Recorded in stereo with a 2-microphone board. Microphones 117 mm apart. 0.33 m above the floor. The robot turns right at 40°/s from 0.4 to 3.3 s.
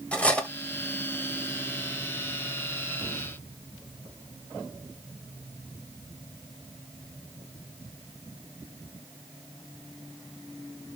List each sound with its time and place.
0.1 s cutlery clinking: 10° left (ahead or behind), 0.7 m